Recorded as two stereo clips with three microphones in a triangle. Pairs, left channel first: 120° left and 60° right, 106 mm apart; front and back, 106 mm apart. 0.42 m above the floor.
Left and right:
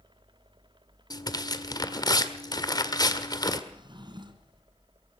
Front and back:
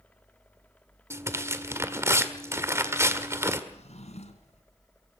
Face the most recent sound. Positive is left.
turn(degrees=-15)